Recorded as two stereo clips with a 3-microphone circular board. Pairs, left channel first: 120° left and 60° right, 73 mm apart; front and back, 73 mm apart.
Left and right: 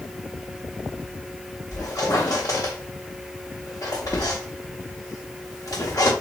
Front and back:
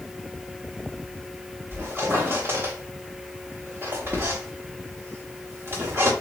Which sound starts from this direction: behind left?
A squeak, at 1.7 s.